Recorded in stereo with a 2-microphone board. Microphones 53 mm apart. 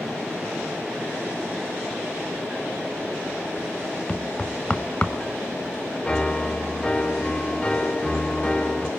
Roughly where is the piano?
Centre.